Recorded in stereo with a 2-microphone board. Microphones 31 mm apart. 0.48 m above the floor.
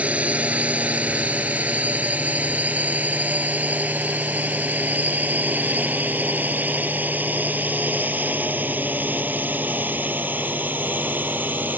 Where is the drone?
45° right (ahead or behind); by 11.8 s 75° right (ahead or behind).